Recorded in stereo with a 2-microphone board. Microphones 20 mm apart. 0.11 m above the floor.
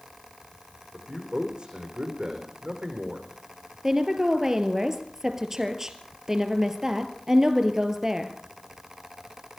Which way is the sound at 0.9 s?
45° right (ahead or behind).